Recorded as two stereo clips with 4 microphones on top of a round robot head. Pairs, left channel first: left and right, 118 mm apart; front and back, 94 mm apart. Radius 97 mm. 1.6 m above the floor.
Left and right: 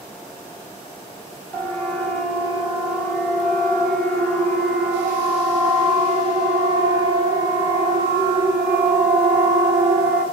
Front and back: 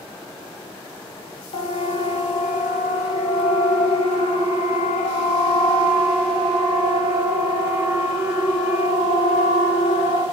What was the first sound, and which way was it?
A siren, 10° left.